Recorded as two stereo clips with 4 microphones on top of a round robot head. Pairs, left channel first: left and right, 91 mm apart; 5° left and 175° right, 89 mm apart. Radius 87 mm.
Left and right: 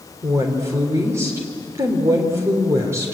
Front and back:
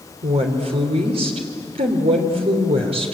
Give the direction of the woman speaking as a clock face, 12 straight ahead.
5 o'clock.